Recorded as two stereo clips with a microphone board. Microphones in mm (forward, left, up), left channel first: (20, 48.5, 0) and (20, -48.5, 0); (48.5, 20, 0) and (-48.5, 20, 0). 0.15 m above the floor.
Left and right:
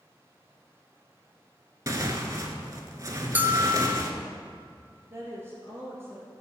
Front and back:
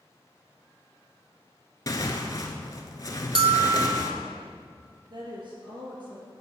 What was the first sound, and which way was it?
Tearing paper, 40° right.